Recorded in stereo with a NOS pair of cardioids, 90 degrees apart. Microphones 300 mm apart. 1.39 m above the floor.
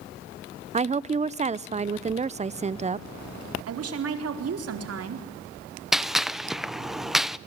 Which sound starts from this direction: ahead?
A gunshot, at 5.9 s.